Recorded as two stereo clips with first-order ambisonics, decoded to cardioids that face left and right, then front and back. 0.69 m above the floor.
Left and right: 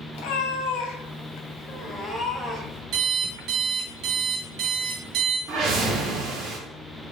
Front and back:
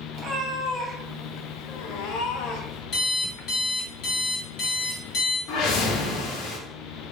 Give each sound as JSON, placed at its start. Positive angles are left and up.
{"t": 0.1, "sound": "a cat meowing", "azimuth_deg": 110, "distance_m": 0.9}
{"t": 2.9, "sound": "an alarm clock", "azimuth_deg": -50, "distance_m": 0.9}
{"t": 5.5, "sound": "a whoosh", "azimuth_deg": -30, "distance_m": 0.8}